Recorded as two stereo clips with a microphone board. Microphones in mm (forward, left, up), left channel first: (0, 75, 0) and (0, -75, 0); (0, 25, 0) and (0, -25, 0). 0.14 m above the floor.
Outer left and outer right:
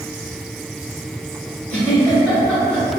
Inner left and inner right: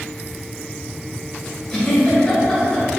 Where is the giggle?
10° left (ahead or behind), 1.6 m.